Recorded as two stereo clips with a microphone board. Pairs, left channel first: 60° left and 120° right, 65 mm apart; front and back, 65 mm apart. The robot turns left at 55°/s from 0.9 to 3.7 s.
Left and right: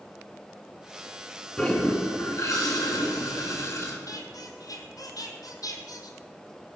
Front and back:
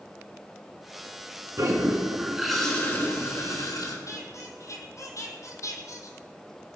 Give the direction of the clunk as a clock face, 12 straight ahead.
No clunk in this recording.